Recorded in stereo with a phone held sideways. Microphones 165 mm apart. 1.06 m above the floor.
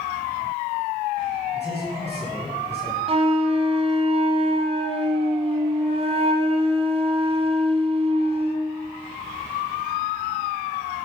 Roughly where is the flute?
Right.